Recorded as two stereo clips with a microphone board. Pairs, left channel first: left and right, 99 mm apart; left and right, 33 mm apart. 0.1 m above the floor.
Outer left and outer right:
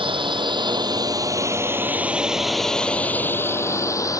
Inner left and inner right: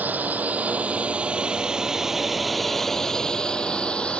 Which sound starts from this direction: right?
A drone, at 0.0 s.